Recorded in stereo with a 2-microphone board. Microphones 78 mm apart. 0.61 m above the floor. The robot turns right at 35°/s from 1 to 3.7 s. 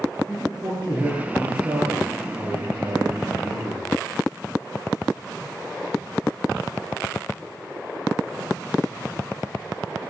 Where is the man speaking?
155° right, 9 m; by 3.9 s 60° right, 9 m.